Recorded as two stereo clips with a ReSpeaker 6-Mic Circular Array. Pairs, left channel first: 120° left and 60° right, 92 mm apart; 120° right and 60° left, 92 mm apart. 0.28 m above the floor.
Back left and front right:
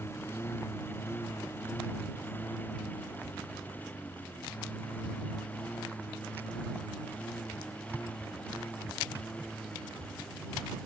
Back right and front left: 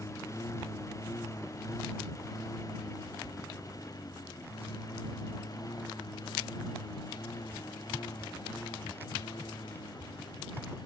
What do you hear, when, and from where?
0.0 s a lawn mower: 175° right; by 10.9 s 160° right